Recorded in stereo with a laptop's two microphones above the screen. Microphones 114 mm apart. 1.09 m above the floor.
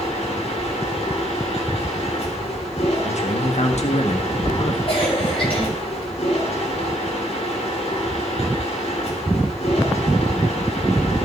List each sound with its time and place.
0.0 s a machine running: 65° left (ahead or behind), 2.5 m
3.0 s a man speaking: 75° left (ahead or behind), 1.4 m
4.9 s a cough: 55° left (ahead or behind), 5 m